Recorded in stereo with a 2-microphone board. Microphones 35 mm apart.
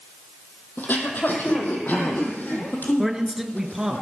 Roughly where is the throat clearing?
Left.